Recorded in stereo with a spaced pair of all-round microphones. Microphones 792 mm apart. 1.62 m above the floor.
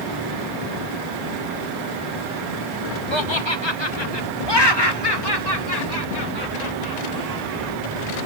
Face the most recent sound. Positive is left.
turn(degrees=25)  # may be behind; listen again after turning